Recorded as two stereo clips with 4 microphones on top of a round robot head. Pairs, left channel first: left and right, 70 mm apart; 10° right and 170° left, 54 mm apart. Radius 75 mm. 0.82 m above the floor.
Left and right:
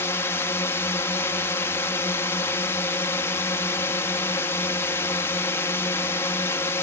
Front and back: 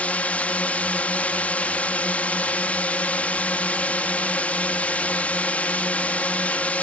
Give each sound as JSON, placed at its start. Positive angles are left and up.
{"t": 0.0, "sound": "a drone", "azimuth_deg": 50}